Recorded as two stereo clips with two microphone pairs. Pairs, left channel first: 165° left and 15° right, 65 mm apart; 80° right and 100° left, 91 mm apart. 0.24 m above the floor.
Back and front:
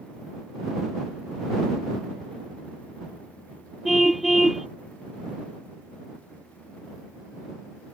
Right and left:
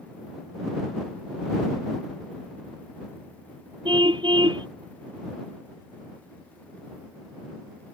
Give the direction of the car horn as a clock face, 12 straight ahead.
10 o'clock.